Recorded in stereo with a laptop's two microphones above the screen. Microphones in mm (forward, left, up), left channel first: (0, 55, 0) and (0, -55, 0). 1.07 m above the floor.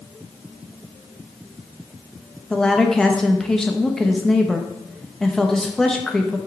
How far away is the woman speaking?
About 0.7 m.